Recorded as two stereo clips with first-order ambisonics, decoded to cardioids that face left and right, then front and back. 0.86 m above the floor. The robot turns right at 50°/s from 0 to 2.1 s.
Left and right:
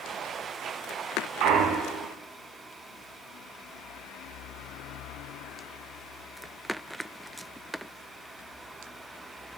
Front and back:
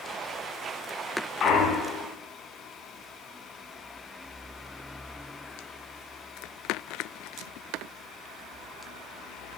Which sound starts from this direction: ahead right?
A clunk, at 1.4 s.